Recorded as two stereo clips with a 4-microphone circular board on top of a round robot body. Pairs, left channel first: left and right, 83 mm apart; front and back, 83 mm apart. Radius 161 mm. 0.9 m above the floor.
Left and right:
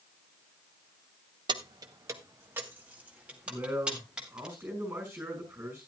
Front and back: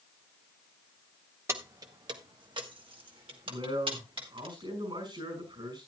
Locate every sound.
1.5 s keys jangling: 120° right, 0.8 m; by 4.5 s 170° right, 3 m
3.5 s a man speaking: 155° right, 5.5 m